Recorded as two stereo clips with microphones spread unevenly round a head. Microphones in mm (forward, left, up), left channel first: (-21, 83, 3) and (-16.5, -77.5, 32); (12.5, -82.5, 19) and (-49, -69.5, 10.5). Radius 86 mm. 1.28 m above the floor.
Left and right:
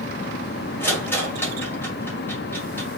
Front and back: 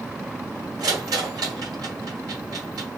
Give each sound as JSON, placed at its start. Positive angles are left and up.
{"t": 0.8, "sound": "a rattle", "azimuth_deg": 175, "distance_m": 1.7}